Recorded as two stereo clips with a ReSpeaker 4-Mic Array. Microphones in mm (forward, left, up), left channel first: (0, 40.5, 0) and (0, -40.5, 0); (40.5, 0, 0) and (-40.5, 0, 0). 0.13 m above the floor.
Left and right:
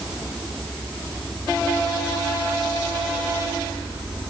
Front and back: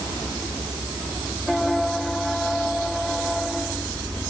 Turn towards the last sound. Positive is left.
No sound to turn to.